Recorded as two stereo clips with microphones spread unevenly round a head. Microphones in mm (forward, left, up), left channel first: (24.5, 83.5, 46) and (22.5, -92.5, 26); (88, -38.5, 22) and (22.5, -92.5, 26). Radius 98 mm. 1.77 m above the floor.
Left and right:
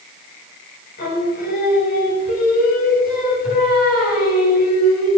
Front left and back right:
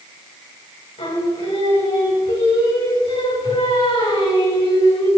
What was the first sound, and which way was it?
Singing, 50° left.